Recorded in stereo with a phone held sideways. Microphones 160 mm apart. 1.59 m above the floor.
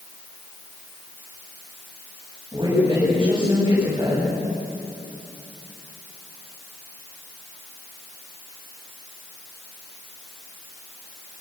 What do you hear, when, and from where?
2.5 s a woman speaking: 30° right (ahead or behind), 10 m